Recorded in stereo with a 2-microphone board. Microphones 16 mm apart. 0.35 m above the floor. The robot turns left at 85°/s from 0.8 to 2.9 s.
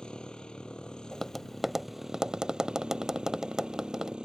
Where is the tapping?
20° left (ahead or behind); by 4.2 s 45° right (ahead or behind).